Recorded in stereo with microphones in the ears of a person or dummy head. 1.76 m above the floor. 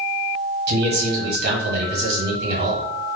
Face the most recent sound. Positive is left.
turn(degrees=-60)  # may be behind; listen again after turning